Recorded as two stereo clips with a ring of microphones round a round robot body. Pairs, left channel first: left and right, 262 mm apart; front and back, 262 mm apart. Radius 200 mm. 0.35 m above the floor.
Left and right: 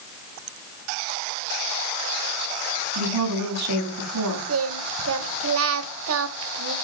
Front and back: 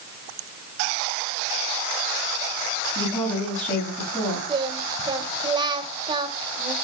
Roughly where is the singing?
Right.